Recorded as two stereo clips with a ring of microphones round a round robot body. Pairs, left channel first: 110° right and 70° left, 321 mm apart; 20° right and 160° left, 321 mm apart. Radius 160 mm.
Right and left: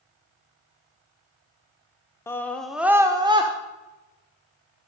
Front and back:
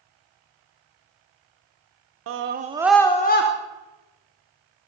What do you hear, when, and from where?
2.3 s a scream: 170° left, 0.9 m; by 3.5 s straight ahead, 0.9 m